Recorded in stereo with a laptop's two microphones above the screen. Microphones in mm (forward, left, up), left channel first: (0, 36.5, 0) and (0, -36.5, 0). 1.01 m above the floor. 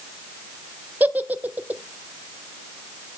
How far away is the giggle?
About 0.5 m.